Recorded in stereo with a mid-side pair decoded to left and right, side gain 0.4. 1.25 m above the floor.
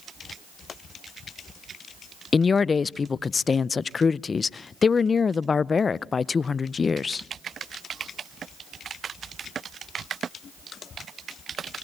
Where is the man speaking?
40° left, 0.6 m.